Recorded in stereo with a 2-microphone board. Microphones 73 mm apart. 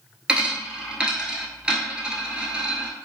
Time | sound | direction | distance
0.3 | a dropped coin | 10° right (ahead or behind) | 0.8 m